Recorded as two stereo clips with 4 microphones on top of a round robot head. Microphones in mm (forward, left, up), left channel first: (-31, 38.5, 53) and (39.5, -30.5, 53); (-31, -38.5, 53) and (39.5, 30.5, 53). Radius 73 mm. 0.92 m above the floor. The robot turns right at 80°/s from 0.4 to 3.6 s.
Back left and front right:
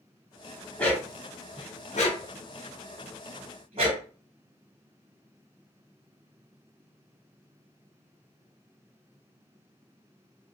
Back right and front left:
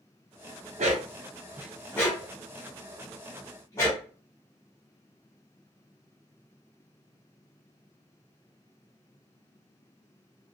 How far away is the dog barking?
About 0.8 m.